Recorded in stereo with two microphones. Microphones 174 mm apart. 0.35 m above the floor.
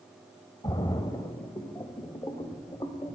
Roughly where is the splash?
Left.